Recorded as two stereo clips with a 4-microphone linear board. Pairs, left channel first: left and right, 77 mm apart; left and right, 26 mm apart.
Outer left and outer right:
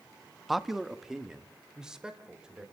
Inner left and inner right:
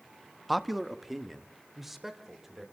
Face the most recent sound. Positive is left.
turn(degrees=-10)  # may be behind; listen again after turning